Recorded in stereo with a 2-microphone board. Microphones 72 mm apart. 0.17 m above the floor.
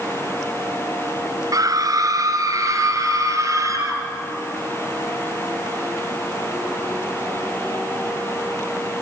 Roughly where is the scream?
Right.